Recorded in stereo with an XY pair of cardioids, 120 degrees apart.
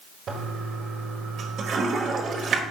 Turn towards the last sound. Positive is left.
turn(degrees=-50)